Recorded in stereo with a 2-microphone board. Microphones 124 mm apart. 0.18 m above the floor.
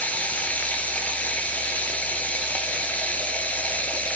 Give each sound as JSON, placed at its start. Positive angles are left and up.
{"t": 0.0, "sound": "running water", "side_deg": 10, "distance_m": 1.1}